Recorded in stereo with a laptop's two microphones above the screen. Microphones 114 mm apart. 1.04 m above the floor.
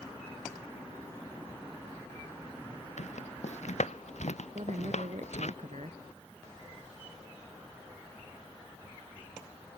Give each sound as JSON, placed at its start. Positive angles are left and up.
{"t": 3.0, "sound": "footsteps", "side_deg": 85}
{"t": 4.5, "sound": "a woman speaking", "side_deg": -85}